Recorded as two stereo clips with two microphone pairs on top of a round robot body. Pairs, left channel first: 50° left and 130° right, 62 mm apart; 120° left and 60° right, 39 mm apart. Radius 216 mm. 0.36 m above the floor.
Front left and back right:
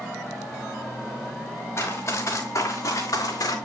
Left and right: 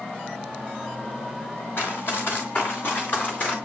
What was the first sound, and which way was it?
Running footsteps, 100° left.